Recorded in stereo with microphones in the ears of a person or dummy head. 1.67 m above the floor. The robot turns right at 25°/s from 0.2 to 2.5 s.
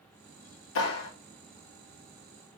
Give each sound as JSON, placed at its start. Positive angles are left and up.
{"t": 0.8, "sound": "a clap", "side_deg": 75, "distance_m": 2.5}